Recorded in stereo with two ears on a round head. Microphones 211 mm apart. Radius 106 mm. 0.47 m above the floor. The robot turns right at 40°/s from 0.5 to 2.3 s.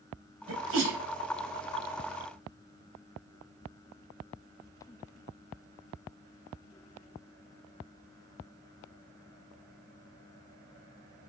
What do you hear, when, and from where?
0.5 s a sneeze: 60° right (ahead or behind), 3 m; by 1.0 s 45° right (ahead or behind), 3 m